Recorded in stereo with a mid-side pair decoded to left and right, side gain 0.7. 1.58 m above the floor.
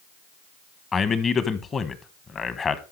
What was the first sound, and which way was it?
A man speaking, 30° left.